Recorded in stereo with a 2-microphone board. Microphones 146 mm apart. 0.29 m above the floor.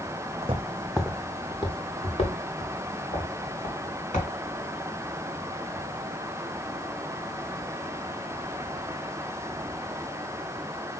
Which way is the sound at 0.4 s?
45° right (ahead or behind).